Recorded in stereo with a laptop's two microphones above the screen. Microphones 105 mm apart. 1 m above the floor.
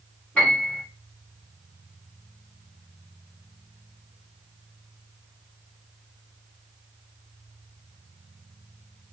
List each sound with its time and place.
0.3 s a piano: 15° left (ahead or behind), 2 m